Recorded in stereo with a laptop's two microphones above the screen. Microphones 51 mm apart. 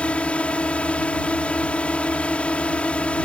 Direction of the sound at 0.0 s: 25° left (ahead or behind).